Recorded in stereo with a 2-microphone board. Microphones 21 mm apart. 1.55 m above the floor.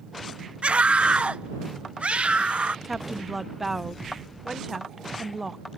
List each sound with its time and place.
0.6 s a scream: 70° right (ahead or behind); by 2.8 s 85° right
2.9 s a woman speaking: 10° right (ahead or behind)